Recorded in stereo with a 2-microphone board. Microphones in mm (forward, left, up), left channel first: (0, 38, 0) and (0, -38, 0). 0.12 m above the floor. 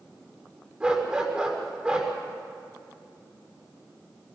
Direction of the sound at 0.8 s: 15° right (ahead or behind).